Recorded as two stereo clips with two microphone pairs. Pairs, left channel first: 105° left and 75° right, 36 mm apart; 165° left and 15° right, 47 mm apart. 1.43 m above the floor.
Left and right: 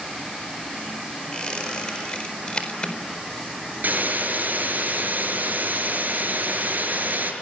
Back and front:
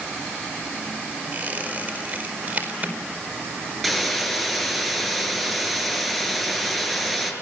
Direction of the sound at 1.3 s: 40° left.